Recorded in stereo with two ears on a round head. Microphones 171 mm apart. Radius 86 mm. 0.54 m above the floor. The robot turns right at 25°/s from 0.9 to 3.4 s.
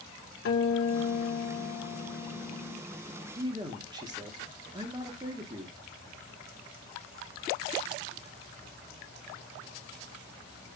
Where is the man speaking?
20° right (ahead or behind), 1.3 m.